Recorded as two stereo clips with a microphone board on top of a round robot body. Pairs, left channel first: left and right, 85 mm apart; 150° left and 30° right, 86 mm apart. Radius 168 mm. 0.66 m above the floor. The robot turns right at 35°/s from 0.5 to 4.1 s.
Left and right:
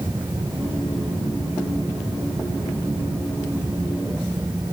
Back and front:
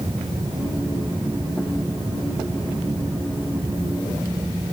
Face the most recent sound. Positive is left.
No sound to turn to.